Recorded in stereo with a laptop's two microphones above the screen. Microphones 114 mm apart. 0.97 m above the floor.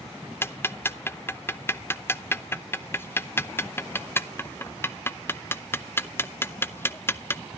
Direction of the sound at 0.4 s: 20° left (ahead or behind).